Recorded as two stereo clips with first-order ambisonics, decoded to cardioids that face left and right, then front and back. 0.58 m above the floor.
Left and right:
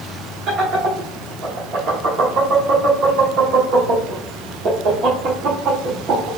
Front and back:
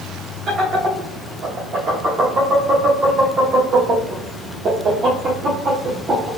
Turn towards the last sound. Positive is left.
turn(degrees=-125)